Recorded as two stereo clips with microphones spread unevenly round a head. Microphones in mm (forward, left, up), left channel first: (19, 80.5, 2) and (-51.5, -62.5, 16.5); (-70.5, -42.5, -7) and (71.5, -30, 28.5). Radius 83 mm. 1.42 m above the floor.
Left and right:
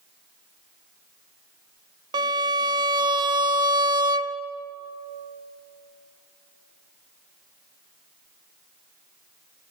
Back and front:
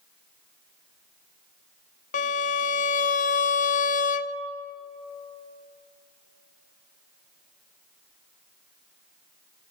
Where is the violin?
160° right, 0.6 m.